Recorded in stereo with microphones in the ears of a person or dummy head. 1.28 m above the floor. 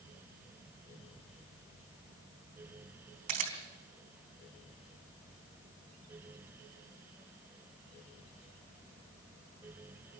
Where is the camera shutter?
50° right (ahead or behind), 3.5 m.